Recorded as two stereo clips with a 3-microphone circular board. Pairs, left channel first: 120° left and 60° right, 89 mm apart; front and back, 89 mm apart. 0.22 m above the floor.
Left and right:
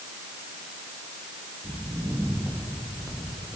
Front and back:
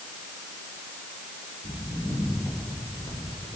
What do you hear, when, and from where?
1.6 s footsteps: 5° left, 9.5 m; by 3.6 s 10° left, 9 m